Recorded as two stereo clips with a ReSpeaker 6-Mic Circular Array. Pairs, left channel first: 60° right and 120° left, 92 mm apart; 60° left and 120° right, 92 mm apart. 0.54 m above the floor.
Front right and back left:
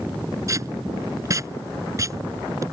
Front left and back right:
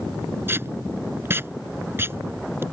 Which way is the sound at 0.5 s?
175° left.